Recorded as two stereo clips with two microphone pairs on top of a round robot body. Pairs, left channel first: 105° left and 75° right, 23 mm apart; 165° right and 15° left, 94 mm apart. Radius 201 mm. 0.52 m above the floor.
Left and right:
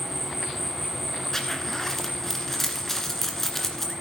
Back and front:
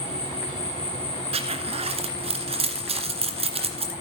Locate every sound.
0.0 s an insect: 165° right, 1.7 m
1.3 s a zipper: 25° left, 1.8 m